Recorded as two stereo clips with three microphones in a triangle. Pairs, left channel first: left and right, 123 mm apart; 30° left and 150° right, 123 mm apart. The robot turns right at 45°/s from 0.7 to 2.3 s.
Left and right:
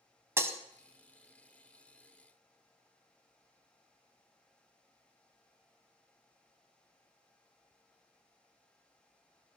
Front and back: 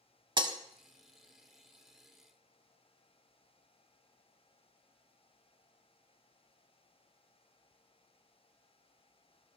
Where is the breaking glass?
145° right, 0.9 m.